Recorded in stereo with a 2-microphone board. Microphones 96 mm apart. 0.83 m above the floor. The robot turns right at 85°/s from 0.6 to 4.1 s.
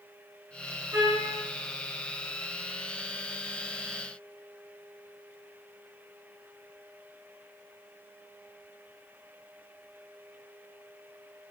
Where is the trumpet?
35° right, 1.9 m; by 1.3 s straight ahead, 1.9 m.